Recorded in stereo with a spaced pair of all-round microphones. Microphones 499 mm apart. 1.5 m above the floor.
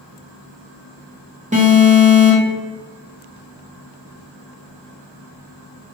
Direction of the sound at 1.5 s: 15° right (ahead or behind).